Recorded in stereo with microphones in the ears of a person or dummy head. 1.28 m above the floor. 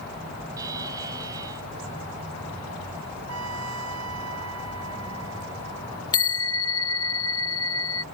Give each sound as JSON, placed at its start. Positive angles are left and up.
{"t": 0.6, "sound": "a buzzer", "side_deg": -20}
{"t": 3.3, "sound": "a trumpet", "side_deg": -85}
{"t": 6.1, "sound": "a bell", "side_deg": 25}